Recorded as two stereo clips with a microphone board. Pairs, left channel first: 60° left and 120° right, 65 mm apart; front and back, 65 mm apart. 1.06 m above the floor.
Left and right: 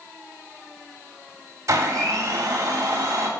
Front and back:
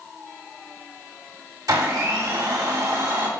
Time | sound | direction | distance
1.7 | a blender | 160° right | 2.5 m